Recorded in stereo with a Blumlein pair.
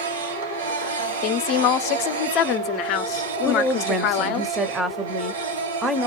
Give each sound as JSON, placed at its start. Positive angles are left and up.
{"t": 0.0, "sound": "a machine running", "azimuth_deg": -65, "distance_m": 1.4}
{"t": 1.2, "sound": "a woman speaking", "azimuth_deg": 40, "distance_m": 0.6}
{"t": 3.5, "sound": "a woman speaking", "azimuth_deg": -10, "distance_m": 0.7}